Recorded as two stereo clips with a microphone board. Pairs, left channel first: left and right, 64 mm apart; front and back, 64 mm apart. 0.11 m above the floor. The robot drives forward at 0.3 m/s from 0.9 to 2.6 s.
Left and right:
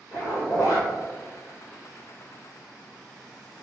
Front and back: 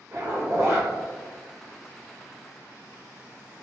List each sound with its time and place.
0.1 s a zipper: 130° left, 1.5 m